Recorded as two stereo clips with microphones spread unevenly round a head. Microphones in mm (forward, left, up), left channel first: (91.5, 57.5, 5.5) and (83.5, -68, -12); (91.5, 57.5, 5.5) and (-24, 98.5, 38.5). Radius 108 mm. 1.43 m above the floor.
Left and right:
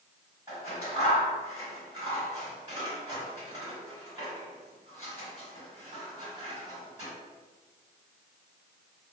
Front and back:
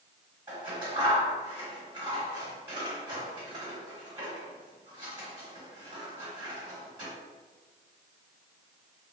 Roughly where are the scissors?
Behind.